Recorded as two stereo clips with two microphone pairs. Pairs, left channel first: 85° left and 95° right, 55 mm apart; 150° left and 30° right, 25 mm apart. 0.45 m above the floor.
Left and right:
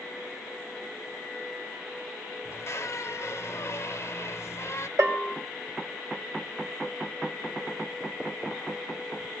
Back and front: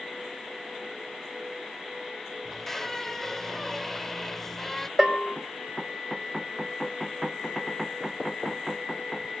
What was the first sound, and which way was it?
A squeak, 70° left.